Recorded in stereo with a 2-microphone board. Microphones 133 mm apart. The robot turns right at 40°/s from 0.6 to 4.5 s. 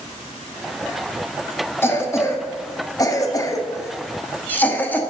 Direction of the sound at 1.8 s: 20° left (ahead or behind).